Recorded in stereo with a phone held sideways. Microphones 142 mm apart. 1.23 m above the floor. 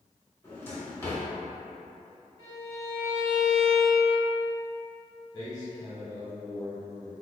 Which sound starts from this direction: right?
A violin, at 2.4 s.